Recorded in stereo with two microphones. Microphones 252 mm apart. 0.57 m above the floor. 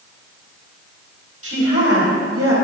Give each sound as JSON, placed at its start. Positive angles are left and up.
{"t": 1.4, "sound": "a woman speaking", "side_deg": -65, "distance_m": 3.5}